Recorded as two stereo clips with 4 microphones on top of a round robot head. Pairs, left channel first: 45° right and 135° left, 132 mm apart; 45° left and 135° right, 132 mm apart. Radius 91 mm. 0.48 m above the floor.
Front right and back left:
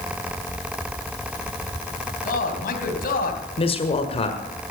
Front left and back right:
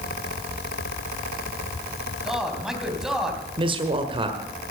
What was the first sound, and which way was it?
A man speaking, 50° right.